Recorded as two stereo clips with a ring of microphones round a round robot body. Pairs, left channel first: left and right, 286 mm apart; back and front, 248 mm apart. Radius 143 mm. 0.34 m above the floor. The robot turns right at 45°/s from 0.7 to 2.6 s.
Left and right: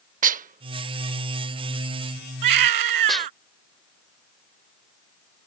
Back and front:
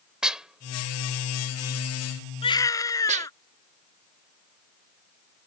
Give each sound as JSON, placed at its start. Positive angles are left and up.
{"t": 0.2, "sound": "dishes clattering", "azimuth_deg": -85}
{"t": 2.4, "sound": "a baby crying", "azimuth_deg": -110}